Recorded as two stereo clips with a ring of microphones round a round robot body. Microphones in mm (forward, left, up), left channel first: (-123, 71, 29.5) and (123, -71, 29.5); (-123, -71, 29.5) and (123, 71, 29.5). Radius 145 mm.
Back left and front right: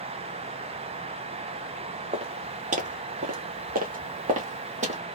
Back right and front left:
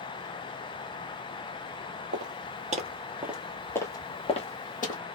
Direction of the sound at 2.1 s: 30° left.